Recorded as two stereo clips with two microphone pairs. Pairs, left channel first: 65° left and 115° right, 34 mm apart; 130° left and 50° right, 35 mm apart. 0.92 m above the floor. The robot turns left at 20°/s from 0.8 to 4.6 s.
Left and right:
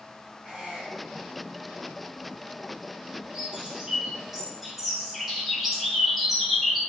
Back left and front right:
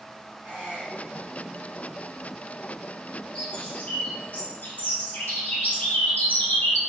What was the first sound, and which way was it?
A squeak, 40° right.